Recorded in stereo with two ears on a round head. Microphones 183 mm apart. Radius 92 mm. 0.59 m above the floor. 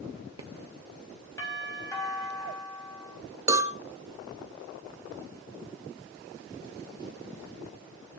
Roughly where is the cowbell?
Centre.